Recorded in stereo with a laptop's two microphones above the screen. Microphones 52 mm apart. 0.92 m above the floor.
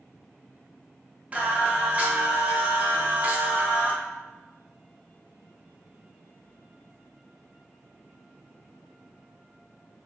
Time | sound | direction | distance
1.3 | singing | 25° right (ahead or behind) | 0.6 m